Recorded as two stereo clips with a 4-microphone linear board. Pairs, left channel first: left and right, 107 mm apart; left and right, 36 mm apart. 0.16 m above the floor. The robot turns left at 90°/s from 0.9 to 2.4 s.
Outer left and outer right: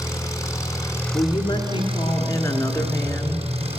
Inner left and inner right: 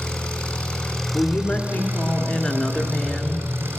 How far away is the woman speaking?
About 1.7 m.